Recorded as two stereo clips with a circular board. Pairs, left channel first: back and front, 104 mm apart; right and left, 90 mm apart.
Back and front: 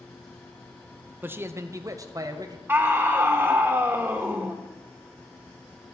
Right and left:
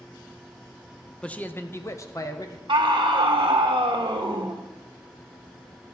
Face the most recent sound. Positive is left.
turn(degrees=70)